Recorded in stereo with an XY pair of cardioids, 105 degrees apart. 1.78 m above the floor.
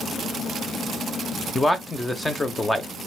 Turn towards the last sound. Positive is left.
turn(degrees=15)